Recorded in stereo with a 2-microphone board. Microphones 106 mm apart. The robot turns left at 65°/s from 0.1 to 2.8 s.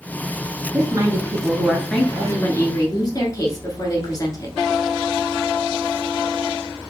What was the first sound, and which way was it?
A woman speaking, 110° right.